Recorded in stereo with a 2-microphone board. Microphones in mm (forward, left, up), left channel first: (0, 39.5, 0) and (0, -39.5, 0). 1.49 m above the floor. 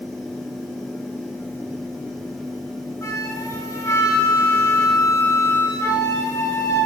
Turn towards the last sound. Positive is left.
turn(degrees=35)  # may be behind; listen again after turning